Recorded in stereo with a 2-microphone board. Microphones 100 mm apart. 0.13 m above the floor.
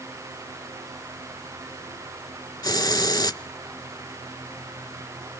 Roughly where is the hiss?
Left.